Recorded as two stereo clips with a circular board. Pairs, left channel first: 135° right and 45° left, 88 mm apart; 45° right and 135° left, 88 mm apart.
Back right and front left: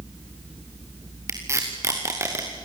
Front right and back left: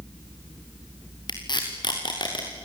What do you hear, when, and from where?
1.3 s tape being pulled: 15° right, 5 m